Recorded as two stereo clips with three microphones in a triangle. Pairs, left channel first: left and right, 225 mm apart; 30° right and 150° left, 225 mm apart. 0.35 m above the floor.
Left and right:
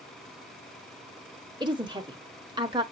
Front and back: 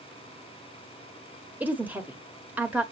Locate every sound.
1.6 s a woman speaking: 135° right, 0.9 m